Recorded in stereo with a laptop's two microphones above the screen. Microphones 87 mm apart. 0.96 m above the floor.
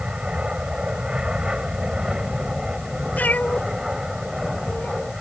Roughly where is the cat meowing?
Centre.